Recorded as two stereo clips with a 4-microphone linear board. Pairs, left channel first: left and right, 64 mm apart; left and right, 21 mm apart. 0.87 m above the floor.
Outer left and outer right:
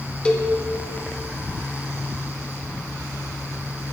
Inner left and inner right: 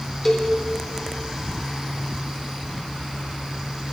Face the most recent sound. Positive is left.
turn(degrees=15)  # may be behind; listen again after turning